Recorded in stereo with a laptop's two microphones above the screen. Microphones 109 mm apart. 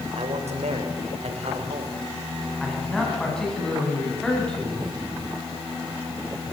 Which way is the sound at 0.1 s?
80° right.